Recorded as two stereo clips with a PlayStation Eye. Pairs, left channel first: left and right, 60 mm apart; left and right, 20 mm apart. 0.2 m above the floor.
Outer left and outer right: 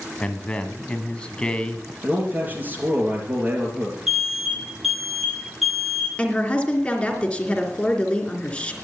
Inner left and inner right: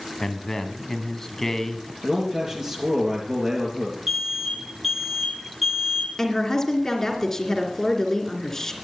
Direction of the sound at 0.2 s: 15° left (ahead or behind).